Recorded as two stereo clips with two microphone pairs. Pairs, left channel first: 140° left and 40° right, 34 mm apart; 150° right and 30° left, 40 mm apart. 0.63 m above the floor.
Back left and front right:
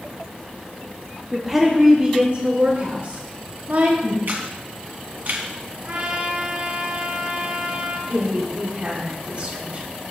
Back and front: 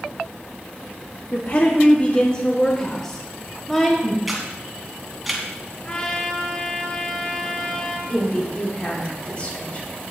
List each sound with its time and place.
1.3 s a woman speaking: 130° right, 1.3 m; by 4.2 s 60° right, 3 m
4.3 s a camera shutter: 60° right, 2.5 m
5.8 s a trumpet: 80° right, 2 m
8.1 s a woman speaking: 90° right, 3.5 m